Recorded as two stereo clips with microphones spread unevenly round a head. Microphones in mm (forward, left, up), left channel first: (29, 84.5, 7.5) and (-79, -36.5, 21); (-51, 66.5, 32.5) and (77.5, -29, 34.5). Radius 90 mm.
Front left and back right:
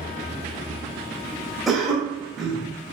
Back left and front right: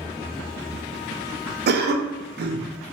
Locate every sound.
1.7 s a cough: 40° right, 0.6 m